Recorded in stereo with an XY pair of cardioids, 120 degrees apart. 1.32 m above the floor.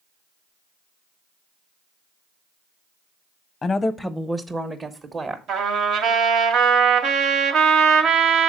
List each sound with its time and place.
3.6 s a woman speaking: 35° left, 0.6 m; by 5.4 s 35° right, 1.3 m
5.5 s a trumpet: 70° right, 1.5 m